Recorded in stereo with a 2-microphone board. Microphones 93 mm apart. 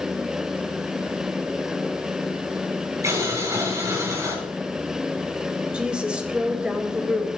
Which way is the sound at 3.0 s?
35° right (ahead or behind).